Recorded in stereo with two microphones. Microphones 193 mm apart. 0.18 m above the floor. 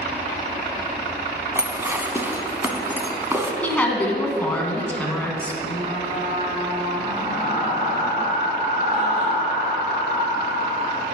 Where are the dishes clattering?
15° right (ahead or behind), 0.8 m.